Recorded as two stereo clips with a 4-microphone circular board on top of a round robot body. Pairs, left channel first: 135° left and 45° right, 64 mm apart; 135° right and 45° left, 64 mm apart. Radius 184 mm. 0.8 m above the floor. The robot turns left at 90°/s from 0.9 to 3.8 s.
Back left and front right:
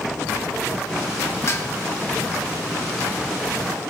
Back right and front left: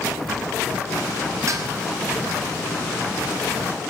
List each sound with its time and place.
1.5 s dishes clattering: 90° left, 1.9 m; by 1.7 s 70° left, 1.9 m